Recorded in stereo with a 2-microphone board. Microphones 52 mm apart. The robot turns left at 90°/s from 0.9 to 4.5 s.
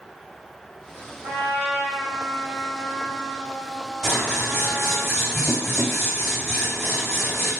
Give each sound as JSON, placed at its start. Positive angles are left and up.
{"t": 1.2, "sound": "a trumpet", "azimuth_deg": -85, "distance_m": 1.3}
{"t": 4.0, "sound": "scissors", "azimuth_deg": -25, "distance_m": 1.7}